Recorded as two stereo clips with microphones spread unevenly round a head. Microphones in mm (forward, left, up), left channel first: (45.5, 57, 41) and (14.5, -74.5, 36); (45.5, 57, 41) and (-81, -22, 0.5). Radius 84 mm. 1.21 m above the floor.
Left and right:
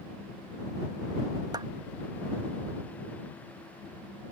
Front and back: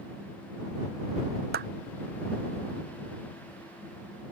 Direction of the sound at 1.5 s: 170° right.